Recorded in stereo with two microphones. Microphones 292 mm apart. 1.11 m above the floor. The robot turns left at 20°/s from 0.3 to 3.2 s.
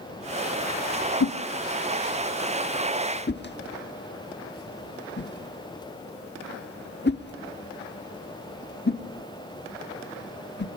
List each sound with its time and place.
1.2 s a whoosh: 65° left (ahead or behind), 1.2 m; by 10.7 s 35° left (ahead or behind), 1.2 m